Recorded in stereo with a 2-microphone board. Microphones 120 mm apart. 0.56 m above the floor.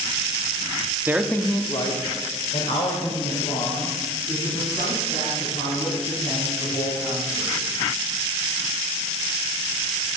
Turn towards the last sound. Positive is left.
turn(degrees=85)